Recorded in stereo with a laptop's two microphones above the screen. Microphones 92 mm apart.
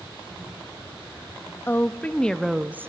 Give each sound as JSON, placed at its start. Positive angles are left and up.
{"t": 1.7, "sound": "a woman speaking", "side_deg": 25, "distance_m": 1.4}